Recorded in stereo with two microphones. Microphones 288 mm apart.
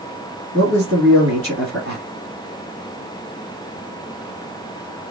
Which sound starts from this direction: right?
A man speaking, at 0.5 s.